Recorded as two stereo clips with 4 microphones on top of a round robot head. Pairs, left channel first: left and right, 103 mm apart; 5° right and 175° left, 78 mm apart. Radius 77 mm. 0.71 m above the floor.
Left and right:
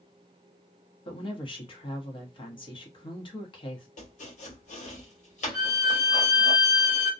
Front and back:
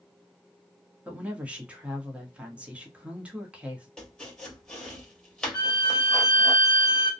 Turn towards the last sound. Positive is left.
turn(degrees=-25)